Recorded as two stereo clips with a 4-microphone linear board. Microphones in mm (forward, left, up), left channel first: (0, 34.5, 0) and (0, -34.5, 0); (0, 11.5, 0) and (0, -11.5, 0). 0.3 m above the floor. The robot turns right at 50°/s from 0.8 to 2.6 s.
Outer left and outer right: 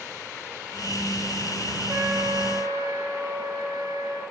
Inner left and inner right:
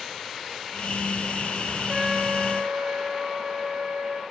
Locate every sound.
1.9 s a trumpet: 140° right, 3 m; by 4.2 s 105° right, 3 m